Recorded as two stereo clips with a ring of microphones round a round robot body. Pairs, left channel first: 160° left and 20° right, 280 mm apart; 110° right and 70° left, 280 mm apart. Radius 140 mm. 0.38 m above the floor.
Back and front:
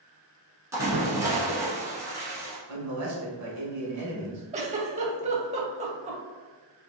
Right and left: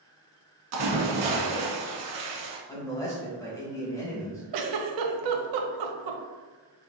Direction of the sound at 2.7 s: 35° right.